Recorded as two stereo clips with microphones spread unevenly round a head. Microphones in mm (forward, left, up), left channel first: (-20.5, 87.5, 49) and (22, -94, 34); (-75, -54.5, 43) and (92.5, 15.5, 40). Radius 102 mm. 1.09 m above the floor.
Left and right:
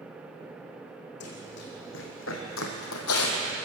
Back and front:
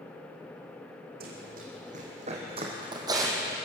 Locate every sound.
1.2 s running footsteps: 70° left, 4 m; by 3.6 s 105° left, 3 m